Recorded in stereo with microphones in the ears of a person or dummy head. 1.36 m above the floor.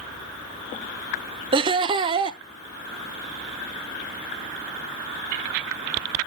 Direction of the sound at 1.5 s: 30° right (ahead or behind).